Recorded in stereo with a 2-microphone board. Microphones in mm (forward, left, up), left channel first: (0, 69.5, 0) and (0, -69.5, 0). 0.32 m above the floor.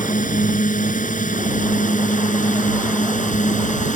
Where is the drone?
70° left (ahead or behind); by 4.0 s 65° left (ahead or behind).